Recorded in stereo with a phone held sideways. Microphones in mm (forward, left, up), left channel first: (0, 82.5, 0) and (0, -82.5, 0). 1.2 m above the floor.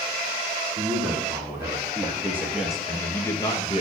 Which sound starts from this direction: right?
A man speaking, at 0.8 s.